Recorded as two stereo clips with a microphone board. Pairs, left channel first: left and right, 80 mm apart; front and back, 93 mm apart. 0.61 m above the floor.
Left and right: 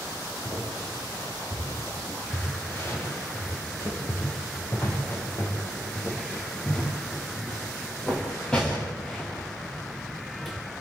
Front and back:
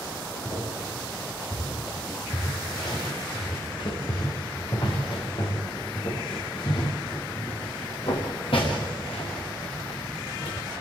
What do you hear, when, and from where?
0.5 s footsteps: 40° left, 8.5 m; by 10.6 s straight ahead, 5 m